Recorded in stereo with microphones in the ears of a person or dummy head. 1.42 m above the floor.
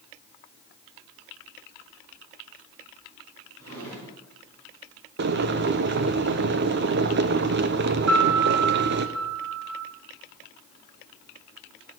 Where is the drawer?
80° right, 4.5 m.